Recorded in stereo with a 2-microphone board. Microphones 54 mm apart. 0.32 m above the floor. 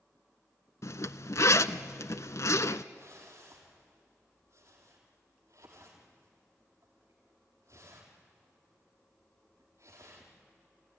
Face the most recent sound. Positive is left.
turn(degrees=-80)